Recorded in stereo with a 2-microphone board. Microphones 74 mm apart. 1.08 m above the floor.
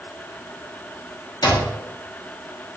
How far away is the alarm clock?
About 1.1 m.